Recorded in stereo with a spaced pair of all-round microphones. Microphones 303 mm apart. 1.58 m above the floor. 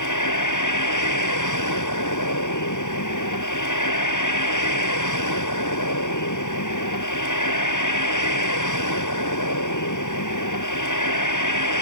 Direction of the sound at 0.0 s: 75° left (ahead or behind).